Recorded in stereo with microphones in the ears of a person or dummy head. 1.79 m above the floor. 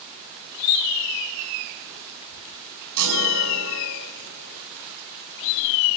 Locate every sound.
3.0 s a chime: 75° right (ahead or behind), 5 m